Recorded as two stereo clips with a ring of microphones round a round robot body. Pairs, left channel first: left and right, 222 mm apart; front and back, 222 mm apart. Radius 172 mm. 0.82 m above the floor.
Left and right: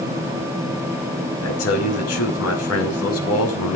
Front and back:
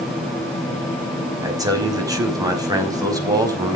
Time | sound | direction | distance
1.4 | a man speaking | 105° left | 5 m